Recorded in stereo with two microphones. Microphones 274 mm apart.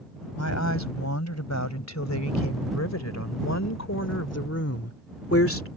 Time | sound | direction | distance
0.4 | a woman speaking | 75° left (ahead or behind) | ?